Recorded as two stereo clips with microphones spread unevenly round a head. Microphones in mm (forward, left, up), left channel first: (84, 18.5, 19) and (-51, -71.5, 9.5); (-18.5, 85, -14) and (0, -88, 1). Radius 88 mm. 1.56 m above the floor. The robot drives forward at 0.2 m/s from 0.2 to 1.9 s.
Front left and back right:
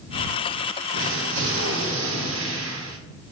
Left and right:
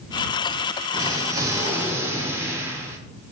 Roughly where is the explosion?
Behind right.